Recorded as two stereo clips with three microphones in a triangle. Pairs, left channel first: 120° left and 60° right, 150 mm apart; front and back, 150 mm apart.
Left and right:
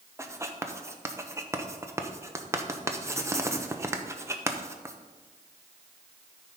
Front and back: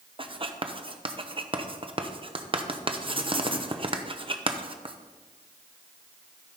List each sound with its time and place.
0.2 s writing: 130° right, 0.8 m